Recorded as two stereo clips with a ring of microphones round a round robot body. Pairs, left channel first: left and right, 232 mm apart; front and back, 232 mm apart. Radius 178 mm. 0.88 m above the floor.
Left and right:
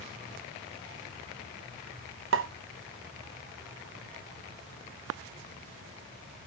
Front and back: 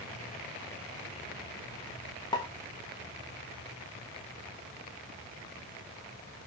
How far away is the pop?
About 1.0 m.